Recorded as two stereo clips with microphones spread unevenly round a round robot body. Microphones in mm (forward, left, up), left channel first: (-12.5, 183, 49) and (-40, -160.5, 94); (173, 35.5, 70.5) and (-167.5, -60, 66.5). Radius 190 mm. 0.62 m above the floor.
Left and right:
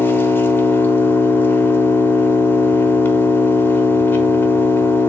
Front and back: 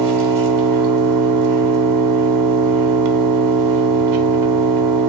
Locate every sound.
0.0 s an engine running: 165° left, 1.0 m